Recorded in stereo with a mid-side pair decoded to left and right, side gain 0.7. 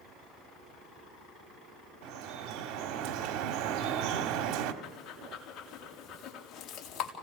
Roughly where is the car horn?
I don't hear a car horn.